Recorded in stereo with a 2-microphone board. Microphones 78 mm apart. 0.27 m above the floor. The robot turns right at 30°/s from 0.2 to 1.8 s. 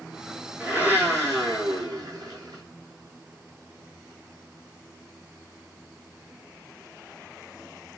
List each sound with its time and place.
0.6 s a blender: 160° right, 0.9 m; by 2.6 s 120° right, 0.9 m